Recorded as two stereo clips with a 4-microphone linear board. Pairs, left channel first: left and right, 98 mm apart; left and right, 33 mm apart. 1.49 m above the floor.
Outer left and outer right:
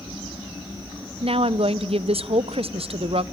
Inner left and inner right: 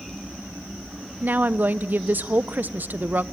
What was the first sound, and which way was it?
A woman speaking, 75° right (ahead or behind).